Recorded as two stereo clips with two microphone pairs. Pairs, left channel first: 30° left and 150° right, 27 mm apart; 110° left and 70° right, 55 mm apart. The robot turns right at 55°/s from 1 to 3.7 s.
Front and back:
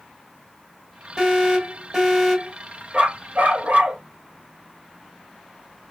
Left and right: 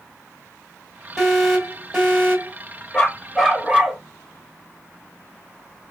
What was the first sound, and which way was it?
An alarm, straight behind.